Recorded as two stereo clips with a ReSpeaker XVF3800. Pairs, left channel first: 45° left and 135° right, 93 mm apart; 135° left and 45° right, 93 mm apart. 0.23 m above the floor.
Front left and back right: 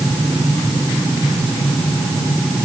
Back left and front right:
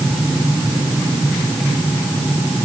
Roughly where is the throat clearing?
No throat clearing in this recording.